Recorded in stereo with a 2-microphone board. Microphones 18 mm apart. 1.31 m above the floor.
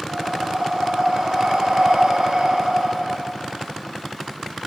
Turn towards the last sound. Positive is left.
turn(degrees=-65)  # may be behind; listen again after turning